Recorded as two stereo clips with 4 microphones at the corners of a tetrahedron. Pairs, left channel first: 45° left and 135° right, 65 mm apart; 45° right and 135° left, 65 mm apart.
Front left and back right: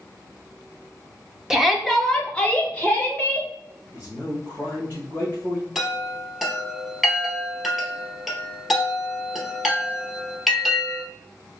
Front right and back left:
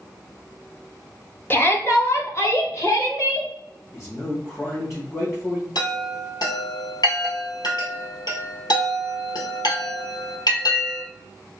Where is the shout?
60° right, 0.8 m; by 3.5 s 15° right, 1.7 m.